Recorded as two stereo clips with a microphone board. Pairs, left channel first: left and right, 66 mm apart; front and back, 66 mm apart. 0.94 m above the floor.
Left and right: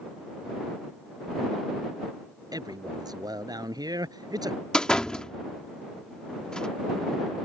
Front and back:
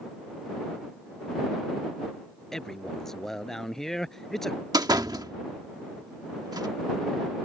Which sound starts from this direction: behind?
A door slam, at 4.7 s.